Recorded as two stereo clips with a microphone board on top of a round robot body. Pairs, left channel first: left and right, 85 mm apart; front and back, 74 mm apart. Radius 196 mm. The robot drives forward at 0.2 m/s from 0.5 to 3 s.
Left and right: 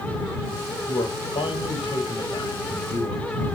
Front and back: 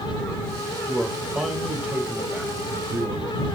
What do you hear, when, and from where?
0.9 s a man speaking: 105° left, 2.5 m; by 3.5 s 115° left, 2.5 m